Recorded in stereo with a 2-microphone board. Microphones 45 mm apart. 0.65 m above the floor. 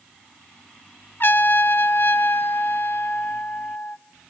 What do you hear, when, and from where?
1.2 s a trumpet: 50° left (ahead or behind), 0.5 m